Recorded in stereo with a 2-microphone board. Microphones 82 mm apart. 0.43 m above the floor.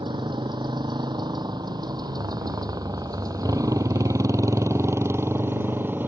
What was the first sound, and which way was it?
A motorcycle, 65° right (ahead or behind).